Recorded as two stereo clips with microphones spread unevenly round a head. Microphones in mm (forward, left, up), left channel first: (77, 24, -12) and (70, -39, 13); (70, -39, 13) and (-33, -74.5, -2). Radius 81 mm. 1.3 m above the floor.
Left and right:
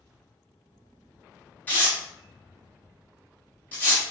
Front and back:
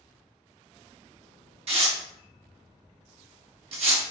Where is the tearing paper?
175° left, 0.8 m.